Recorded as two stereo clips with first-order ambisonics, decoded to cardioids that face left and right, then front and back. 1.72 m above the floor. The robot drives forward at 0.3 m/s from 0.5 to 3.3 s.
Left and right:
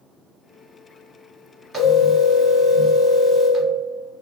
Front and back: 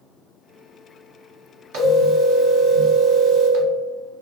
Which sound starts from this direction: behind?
A phone ringing, at 1.7 s.